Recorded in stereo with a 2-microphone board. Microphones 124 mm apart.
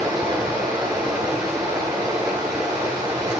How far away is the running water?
About 8.5 m.